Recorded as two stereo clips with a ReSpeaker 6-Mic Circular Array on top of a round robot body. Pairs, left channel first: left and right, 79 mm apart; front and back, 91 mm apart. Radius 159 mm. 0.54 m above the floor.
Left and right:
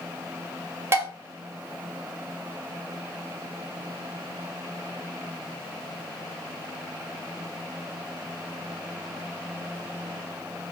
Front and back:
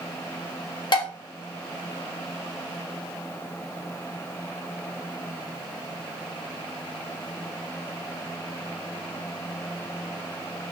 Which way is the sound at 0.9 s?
30° right.